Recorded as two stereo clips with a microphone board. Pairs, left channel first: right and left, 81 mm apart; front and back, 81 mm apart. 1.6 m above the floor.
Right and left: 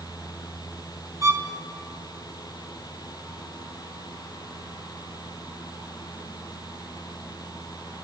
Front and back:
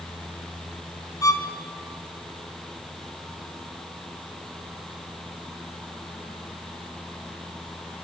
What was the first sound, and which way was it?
A violin, 45° left.